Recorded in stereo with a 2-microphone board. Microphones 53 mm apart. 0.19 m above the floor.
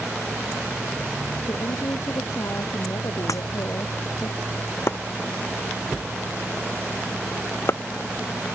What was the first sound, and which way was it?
A woman speaking, 70° left (ahead or behind).